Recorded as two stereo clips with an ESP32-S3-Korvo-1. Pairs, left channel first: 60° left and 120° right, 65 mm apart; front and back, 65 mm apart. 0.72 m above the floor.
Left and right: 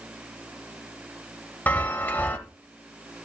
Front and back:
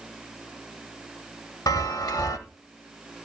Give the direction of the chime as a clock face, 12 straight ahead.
12 o'clock.